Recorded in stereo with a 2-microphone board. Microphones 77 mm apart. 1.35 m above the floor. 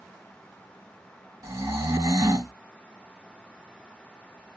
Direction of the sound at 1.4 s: 40° right (ahead or behind).